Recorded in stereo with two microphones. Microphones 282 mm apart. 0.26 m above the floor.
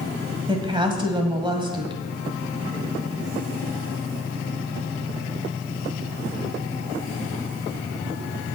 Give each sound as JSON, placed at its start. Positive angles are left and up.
{"t": 0.5, "sound": "a woman speaking", "side_deg": -15, "distance_m": 1.9}